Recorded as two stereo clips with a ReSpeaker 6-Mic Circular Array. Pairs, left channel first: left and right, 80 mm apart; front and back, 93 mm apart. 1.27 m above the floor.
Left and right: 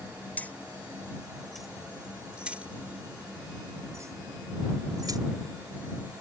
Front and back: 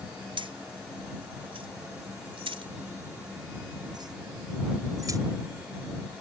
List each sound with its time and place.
0.4 s keys jangling: 160° left; by 5.2 s 130° right